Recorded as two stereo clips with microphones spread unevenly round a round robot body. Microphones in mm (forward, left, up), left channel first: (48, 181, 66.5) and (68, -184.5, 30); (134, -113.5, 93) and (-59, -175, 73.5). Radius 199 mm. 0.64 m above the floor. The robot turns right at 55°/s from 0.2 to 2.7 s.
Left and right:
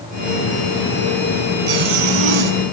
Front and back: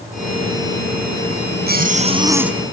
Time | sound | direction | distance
1.7 | a zipper | 125° right | 3.5 m